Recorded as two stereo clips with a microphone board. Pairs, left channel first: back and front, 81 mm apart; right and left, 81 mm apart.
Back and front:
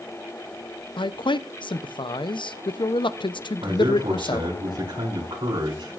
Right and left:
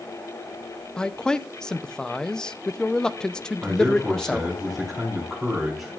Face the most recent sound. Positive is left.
turn(degrees=5)